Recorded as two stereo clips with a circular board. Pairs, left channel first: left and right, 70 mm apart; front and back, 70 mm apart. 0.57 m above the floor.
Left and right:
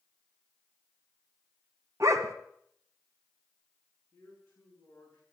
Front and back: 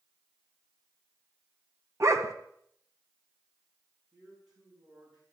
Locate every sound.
2.0 s a dog barking: 135° right, 1.5 m
4.1 s a man speaking: 155° left, 7 m